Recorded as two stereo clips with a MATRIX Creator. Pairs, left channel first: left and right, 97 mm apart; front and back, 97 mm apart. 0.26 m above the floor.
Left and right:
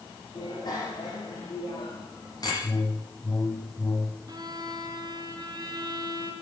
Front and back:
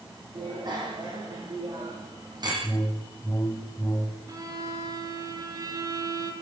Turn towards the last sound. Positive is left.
turn(degrees=-135)